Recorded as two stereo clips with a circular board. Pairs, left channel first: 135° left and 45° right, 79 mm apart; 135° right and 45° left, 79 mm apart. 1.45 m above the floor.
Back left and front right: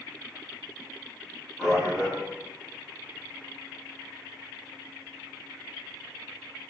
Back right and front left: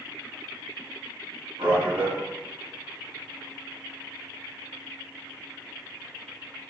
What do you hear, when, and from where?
1.6 s a man speaking: 40° left, 1.4 m